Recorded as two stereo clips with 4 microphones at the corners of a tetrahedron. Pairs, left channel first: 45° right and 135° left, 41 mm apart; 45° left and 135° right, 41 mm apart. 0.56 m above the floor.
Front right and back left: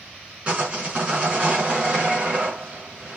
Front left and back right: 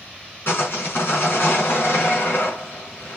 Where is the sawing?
75° left, 5 m.